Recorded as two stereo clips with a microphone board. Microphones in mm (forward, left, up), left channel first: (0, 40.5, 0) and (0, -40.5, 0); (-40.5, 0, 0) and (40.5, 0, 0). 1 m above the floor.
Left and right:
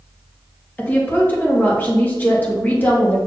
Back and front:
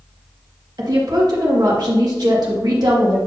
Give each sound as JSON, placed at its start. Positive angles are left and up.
{"t": 0.8, "sound": "a woman speaking", "azimuth_deg": 25, "distance_m": 2.0}